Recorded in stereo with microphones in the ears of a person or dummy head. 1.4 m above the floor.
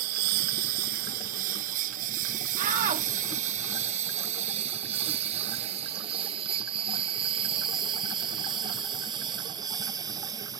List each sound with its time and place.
0.0 s a lawn mower: 60° right (ahead or behind); by 10.6 s 25° right (ahead or behind)
2.6 s a shout: 45° right (ahead or behind)